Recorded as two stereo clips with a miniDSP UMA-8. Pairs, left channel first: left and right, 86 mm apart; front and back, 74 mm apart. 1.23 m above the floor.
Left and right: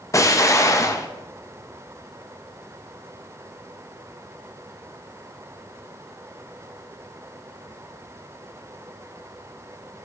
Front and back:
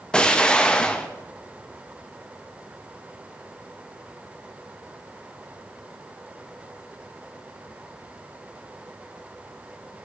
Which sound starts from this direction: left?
An explosion, at 0.1 s.